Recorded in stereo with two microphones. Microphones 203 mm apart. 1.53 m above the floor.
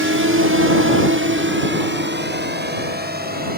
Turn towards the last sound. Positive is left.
turn(degrees=-45)  # may be behind; listen again after turning